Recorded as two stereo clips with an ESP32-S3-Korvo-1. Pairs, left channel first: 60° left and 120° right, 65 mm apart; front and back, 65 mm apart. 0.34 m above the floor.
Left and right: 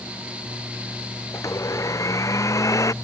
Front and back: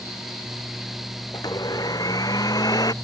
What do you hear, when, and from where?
1.3 s a blender: 25° left